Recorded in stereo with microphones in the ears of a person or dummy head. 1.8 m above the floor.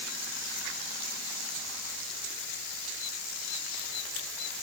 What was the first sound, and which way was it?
Only background noise.